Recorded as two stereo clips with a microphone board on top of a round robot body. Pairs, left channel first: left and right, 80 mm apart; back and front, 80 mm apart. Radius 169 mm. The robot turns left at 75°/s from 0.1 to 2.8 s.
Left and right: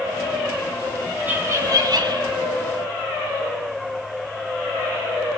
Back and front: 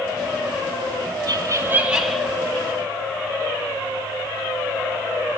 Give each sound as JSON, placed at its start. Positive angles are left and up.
{"t": 1.3, "sound": "laughter", "azimuth_deg": -25, "distance_m": 2.0}